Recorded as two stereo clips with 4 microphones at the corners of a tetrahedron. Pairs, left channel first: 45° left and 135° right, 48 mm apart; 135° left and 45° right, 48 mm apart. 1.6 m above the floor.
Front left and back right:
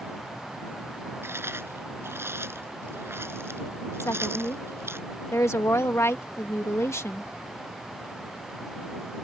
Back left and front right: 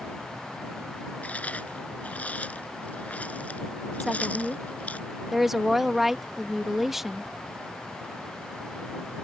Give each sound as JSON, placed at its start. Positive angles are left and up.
{"t": 1.2, "sound": "chewing", "azimuth_deg": -165}
{"t": 4.0, "sound": "a woman speaking", "azimuth_deg": 40}